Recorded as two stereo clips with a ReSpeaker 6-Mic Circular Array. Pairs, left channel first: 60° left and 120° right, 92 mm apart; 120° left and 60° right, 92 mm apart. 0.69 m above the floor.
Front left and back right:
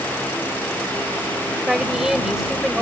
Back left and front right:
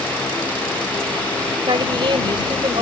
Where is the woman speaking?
35° right.